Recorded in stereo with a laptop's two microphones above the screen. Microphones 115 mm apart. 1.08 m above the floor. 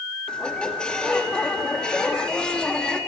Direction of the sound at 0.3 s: 10° left (ahead or behind).